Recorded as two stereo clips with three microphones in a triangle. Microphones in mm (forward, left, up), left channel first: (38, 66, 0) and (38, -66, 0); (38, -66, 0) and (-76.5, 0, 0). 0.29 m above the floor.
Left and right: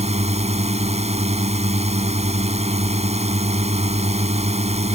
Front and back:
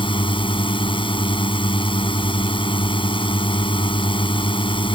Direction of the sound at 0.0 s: 70° right.